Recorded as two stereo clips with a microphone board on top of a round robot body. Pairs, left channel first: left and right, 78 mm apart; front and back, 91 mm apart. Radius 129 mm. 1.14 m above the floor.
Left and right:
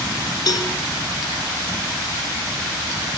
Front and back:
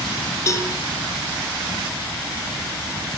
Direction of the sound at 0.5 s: 55° left.